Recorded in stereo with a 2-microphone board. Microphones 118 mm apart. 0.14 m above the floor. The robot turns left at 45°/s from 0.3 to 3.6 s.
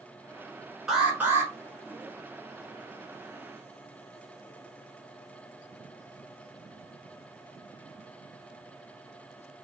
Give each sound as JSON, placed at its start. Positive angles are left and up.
{"t": 0.9, "sound": "an alarm", "side_deg": -5, "distance_m": 1.5}